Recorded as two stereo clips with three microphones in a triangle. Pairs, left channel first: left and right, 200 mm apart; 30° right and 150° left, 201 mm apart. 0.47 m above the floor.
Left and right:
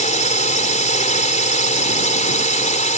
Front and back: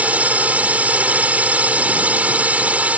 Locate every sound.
0.0 s a drone: 70° left